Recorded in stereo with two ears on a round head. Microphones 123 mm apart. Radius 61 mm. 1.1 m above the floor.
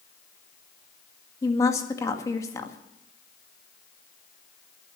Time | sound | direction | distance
1.4 | a woman speaking | 20° left (ahead or behind) | 1.9 m